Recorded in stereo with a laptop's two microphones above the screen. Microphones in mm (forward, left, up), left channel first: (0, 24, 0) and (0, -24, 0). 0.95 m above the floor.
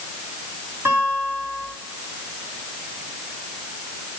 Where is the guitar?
50° right (ahead or behind), 4 m.